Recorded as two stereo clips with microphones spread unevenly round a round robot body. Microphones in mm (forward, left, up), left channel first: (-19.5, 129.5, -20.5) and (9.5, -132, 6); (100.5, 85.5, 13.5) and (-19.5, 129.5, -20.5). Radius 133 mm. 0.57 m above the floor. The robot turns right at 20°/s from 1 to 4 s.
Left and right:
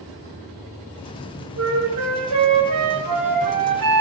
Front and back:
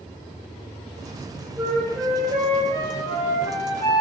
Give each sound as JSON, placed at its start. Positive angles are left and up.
{"t": 1.6, "sound": "a flute", "azimuth_deg": -125, "distance_m": 0.9}